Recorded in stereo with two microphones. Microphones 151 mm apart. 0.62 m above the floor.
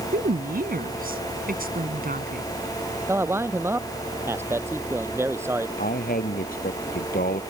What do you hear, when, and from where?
0.1 s a woman speaking: 75° right (ahead or behind)
3.1 s a man speaking: 15° right (ahead or behind)
5.8 s a man speaking: 75° left (ahead or behind)